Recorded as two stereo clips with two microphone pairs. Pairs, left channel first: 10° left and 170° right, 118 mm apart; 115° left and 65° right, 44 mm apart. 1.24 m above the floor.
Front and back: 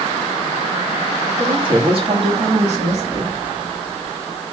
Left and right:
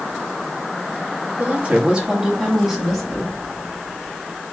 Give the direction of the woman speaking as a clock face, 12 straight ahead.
4 o'clock.